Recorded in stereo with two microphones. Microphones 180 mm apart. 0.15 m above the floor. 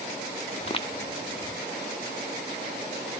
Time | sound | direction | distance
0.6 | footsteps | 35° left (ahead or behind) | 1.1 m